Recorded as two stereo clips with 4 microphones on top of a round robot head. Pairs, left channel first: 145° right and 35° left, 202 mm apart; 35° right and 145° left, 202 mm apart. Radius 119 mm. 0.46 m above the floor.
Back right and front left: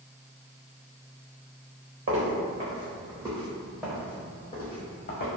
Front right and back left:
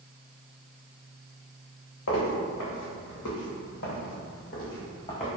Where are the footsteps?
5° right, 1.4 m; by 5.3 s 100° right, 1.1 m.